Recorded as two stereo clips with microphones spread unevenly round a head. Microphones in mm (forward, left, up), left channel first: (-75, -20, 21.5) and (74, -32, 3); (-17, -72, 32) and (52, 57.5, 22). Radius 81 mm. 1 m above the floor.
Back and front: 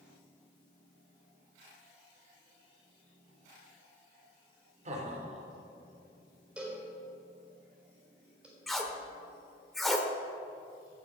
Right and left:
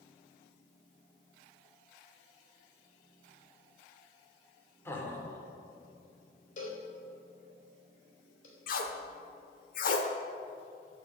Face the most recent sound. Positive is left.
turn(degrees=-100)